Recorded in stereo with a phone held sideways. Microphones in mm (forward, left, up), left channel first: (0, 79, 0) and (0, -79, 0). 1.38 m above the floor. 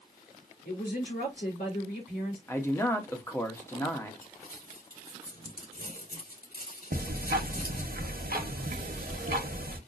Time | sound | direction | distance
0.7 | a woman speaking | 85° left | 3 m
2.5 | a man speaking | 15° left (ahead or behind) | 0.9 m
4.2 | crumpling | 75° left (ahead or behind) | 4 m
6.9 | ticking | 70° right (ahead or behind) | 0.9 m